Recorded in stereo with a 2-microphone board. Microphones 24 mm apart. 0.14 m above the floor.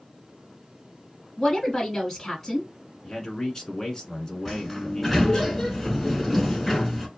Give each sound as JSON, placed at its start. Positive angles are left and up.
{"t": 1.4, "sound": "a woman speaking", "side_deg": 10, "distance_m": 1.4}
{"t": 3.0, "sound": "a man speaking", "side_deg": 20, "distance_m": 1.3}
{"t": 4.5, "sound": "a sliding door", "side_deg": 5, "distance_m": 1.0}